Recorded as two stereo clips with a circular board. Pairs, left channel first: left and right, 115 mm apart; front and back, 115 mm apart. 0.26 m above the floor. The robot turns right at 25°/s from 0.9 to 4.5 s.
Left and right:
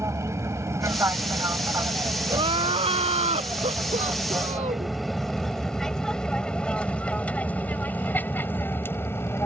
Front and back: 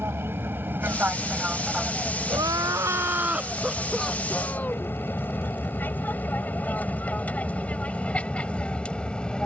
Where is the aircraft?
130° right; by 9.5 s 70° left.